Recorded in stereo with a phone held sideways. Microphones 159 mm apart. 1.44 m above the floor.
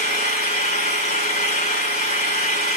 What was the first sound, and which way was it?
An engine running, 50° left (ahead or behind).